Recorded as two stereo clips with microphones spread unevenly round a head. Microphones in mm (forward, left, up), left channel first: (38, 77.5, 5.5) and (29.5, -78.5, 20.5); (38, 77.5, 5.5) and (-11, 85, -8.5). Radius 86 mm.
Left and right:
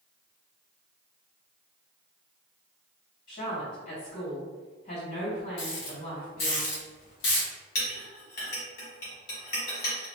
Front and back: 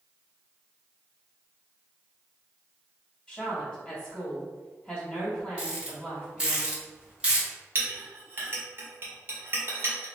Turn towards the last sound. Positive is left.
turn(degrees=125)